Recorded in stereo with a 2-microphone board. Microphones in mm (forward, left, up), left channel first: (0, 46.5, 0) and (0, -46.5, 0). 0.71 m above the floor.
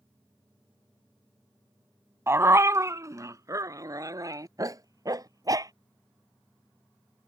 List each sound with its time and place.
2.3 s a dog barking: 25° right (ahead or behind); by 5.7 s 40° right (ahead or behind)